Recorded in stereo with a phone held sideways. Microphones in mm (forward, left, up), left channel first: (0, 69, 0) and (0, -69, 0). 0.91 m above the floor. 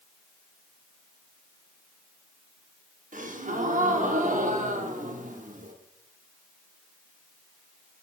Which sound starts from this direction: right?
A gasp, at 3.1 s.